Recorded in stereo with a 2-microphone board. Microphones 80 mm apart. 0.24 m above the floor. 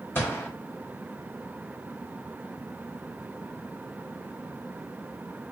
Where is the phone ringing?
I don't hear a phone ringing.